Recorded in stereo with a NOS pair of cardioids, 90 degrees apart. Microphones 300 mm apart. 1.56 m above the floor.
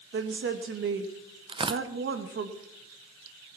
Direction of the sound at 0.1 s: 40° right.